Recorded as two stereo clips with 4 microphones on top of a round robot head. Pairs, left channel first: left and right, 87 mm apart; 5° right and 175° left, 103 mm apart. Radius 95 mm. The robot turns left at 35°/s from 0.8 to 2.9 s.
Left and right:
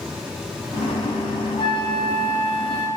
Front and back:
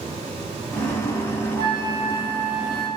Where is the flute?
130° left, 0.6 m; by 2.9 s 85° left, 0.6 m.